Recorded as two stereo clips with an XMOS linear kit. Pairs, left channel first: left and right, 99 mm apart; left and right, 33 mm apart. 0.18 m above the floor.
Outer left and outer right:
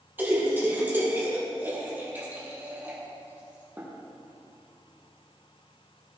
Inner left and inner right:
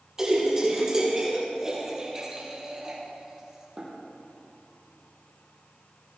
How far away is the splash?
About 4.5 m.